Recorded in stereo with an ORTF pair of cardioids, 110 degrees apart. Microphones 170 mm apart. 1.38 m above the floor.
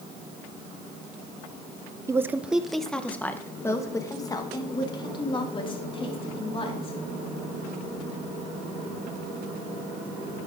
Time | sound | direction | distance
2.1 | a woman speaking | 15° right | 1.0 m